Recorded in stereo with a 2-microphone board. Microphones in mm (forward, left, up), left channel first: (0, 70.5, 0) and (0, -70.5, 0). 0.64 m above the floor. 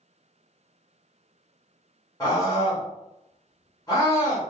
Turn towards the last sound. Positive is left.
turn(degrees=25)  # may be behind; listen again after turning